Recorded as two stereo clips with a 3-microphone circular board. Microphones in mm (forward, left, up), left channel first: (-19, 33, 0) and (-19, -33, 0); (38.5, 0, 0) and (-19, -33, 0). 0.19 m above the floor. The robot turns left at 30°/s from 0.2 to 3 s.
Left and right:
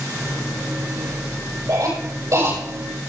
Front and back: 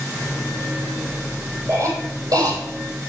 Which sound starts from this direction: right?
A cough, at 1.7 s.